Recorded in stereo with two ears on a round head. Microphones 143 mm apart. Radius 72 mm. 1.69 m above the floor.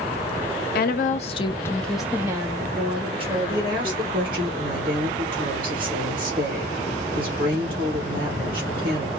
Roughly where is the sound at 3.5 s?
Right.